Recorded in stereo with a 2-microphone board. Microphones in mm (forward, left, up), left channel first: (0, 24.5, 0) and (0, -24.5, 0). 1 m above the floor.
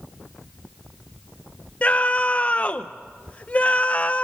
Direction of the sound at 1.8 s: 30° left (ahead or behind).